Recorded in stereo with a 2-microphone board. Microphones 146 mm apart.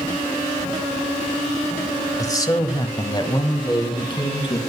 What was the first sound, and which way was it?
A man speaking, 25° left (ahead or behind).